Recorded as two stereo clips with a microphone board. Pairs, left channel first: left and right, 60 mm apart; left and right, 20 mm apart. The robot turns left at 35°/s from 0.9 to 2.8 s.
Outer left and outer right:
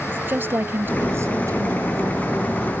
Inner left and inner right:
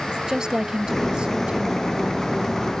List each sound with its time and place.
0.1 s a woman speaking: 35° right; by 2.5 s 90° right